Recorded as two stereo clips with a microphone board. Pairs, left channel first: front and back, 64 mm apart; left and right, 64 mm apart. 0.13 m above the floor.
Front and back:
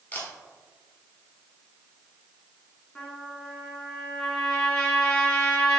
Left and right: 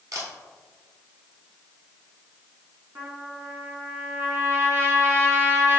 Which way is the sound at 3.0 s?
70° right.